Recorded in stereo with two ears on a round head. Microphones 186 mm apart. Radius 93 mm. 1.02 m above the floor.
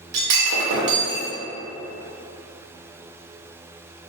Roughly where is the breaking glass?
Right.